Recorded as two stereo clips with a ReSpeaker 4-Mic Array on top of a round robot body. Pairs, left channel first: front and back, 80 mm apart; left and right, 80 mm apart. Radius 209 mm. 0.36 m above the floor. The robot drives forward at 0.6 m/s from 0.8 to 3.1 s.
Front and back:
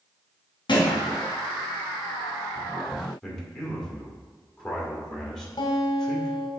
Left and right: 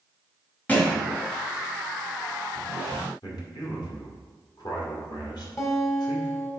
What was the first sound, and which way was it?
A thud, 20° left.